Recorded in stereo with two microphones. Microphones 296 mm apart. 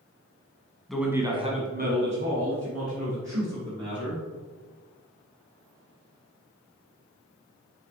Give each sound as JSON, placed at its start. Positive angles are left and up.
{"t": 0.9, "sound": "a man speaking", "side_deg": 0, "distance_m": 1.5}